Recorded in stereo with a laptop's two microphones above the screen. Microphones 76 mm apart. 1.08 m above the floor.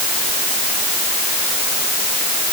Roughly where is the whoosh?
I don't hear a whoosh.